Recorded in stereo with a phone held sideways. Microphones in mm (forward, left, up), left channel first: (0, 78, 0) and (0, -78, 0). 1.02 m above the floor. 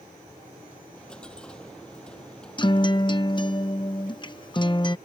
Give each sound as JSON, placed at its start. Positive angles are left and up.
{"t": 0.9, "sound": "a dropped coin", "side_deg": 5}
{"t": 2.6, "sound": "a guitar", "side_deg": 30}